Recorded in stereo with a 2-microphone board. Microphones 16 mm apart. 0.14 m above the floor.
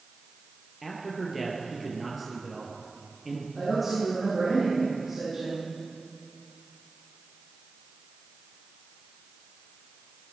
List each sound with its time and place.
0.8 s a man speaking: 5° right (ahead or behind), 3 m
3.5 s a woman speaking: 15° right (ahead or behind), 6 m